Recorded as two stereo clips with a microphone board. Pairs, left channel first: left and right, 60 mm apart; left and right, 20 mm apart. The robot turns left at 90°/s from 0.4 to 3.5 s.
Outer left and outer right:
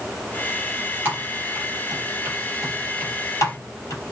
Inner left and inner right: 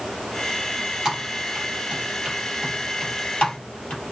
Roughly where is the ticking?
No ticking in this recording.